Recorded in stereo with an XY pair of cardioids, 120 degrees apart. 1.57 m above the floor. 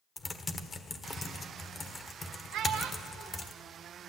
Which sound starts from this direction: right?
A child speaking, at 2.5 s.